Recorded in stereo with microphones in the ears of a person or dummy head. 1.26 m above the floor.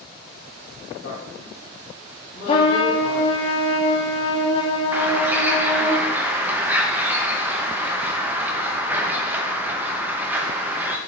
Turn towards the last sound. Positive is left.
turn(degrees=-10)  # may be behind; listen again after turning